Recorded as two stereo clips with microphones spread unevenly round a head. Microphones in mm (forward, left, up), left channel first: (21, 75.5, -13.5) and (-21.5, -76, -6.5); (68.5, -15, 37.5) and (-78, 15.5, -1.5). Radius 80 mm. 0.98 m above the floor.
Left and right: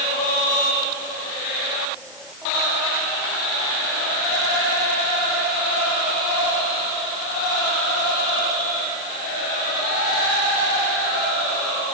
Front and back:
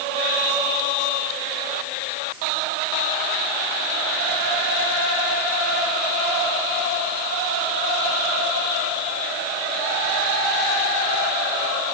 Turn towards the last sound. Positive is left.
No sound to turn to.